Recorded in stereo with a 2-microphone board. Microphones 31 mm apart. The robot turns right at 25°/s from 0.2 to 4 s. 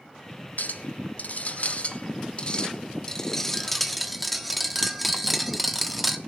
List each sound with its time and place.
0.6 s a clink: 100° left, 1.1 m; by 6.2 s 175° right, 1.1 m